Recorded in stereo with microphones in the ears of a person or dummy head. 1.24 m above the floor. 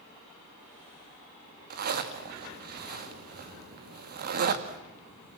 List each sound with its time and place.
1.7 s a zipper: 50° right (ahead or behind), 1.8 m